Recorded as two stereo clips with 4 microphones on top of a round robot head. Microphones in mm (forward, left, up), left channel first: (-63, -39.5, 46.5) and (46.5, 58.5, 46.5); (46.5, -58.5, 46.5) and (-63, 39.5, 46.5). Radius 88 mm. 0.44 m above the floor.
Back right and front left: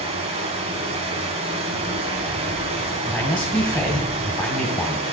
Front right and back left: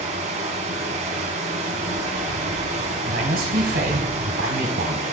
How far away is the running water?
About 1.6 m.